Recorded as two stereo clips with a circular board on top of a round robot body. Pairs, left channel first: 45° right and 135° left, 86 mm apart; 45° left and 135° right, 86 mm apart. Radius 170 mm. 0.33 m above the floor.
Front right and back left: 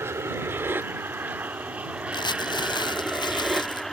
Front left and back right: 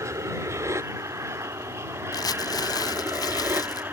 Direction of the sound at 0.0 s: 175° right.